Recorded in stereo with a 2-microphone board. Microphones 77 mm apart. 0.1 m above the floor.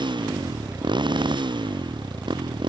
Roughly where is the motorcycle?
Right.